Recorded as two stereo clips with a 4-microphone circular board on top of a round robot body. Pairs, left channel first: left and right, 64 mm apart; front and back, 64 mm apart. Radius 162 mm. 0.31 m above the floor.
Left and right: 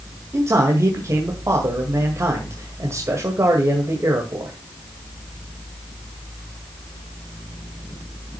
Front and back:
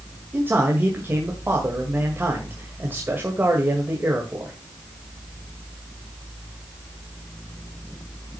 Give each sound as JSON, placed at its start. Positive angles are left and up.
{"t": 0.3, "sound": "a man speaking", "azimuth_deg": -125, "distance_m": 2.0}